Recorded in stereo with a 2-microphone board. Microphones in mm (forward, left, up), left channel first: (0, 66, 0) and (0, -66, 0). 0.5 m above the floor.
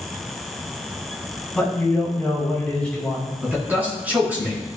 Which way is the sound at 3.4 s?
10° right (ahead or behind).